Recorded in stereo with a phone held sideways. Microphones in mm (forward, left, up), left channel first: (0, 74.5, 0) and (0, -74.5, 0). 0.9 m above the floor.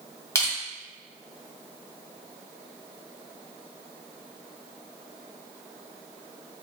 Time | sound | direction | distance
0.3 | crushing | 20° left (ahead or behind) | 1.4 m